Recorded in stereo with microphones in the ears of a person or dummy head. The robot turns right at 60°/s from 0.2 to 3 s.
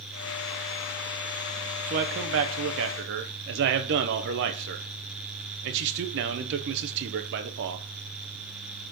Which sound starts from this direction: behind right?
A man speaking, at 1.9 s.